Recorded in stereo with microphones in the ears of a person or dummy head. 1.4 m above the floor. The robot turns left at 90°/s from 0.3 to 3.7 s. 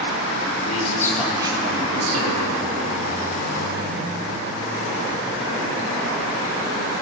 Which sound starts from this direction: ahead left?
A man speaking, at 0.7 s.